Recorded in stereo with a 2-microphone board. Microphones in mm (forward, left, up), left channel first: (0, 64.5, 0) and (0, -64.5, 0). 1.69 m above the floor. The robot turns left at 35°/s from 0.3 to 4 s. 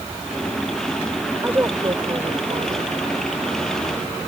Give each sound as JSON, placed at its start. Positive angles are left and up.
{"t": 1.4, "sound": "a woman speaking", "azimuth_deg": -15}